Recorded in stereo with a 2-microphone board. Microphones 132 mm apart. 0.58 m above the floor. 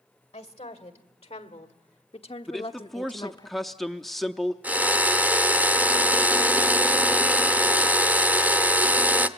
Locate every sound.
0.3 s a woman speaking: 50° left (ahead or behind), 2 m; by 3.5 s 30° left (ahead or behind), 0.7 m
2.5 s a man speaking: centre (ahead or behind), 0.6 m
4.6 s a drill: 10° right (ahead or behind), 0.8 m